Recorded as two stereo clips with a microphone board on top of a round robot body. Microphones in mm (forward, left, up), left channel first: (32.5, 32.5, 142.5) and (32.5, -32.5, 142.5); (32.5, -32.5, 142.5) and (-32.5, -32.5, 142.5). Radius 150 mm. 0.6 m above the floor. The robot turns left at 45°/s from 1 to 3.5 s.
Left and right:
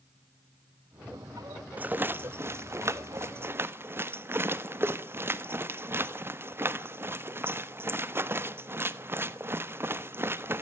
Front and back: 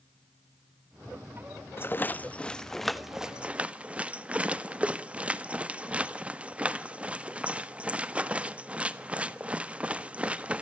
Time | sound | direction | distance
1.8 | a rattle | 35° right | 1.6 m